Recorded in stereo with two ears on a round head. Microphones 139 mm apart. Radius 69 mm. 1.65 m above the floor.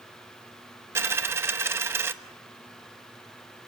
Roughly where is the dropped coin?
Centre.